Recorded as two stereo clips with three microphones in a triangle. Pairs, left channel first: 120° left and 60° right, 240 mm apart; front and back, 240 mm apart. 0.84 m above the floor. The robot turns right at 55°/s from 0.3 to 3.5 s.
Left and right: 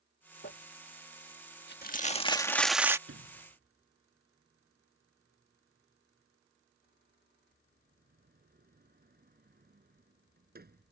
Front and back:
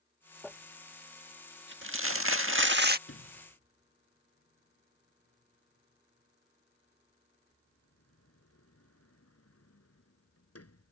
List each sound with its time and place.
0.4 s crumpling: 85° left; by 3.0 s 135° right
3.1 s a sliding door: 35° right; by 10.9 s 10° right